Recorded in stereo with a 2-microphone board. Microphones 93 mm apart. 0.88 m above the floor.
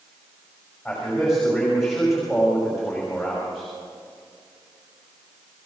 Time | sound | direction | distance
0.8 | a man speaking | 5° left (ahead or behind) | 5 m